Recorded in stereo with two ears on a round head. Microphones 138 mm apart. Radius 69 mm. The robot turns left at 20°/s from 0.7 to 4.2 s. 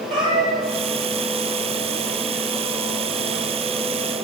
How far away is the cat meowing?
About 2 m.